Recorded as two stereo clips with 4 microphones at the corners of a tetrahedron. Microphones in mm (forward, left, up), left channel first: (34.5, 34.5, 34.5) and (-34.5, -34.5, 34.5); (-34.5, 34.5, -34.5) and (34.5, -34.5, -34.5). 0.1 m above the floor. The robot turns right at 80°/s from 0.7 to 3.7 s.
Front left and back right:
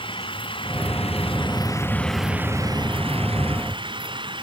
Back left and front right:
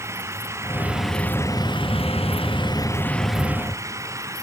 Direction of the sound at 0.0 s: 15° left.